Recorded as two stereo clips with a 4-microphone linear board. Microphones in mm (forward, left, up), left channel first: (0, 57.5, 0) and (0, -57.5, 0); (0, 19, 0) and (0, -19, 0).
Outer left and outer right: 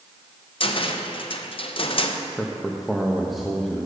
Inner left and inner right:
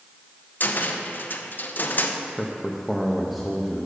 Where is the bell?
No bell in this recording.